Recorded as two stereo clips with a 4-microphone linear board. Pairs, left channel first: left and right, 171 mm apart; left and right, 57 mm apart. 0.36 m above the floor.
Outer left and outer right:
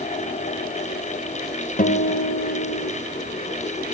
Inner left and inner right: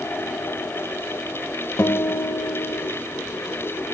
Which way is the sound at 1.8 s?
55° left (ahead or behind).